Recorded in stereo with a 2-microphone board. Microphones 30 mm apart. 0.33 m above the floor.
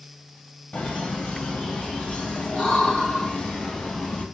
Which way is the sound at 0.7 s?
50° left (ahead or behind).